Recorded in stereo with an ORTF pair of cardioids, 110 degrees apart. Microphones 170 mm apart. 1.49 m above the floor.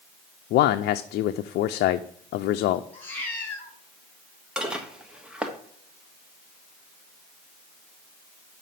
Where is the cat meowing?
10° left, 4 m.